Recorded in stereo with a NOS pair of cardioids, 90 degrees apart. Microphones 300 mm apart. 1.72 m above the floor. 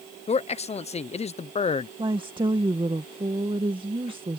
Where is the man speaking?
20° left.